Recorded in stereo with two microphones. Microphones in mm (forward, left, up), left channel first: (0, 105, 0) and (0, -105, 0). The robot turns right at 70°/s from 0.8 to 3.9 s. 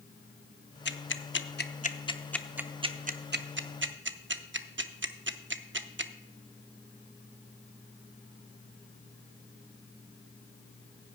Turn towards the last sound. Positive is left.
turn(degrees=-65)  # may be behind; listen again after turning